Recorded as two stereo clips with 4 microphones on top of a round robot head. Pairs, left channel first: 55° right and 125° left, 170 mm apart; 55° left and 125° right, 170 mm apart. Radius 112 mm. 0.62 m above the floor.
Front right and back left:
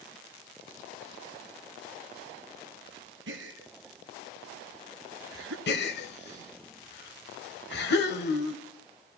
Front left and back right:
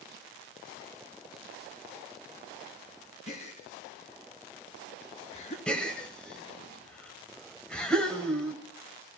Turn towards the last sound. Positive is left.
turn(degrees=-30)